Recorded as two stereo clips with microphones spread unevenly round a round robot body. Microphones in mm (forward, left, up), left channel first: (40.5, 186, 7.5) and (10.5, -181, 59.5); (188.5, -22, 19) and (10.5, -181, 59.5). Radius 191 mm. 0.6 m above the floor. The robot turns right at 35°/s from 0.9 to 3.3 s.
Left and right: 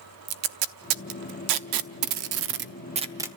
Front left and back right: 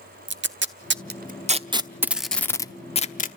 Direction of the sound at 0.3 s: 90° right.